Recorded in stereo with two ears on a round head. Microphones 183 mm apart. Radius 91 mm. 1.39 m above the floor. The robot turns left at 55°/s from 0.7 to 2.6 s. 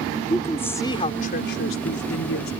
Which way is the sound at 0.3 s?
170° left.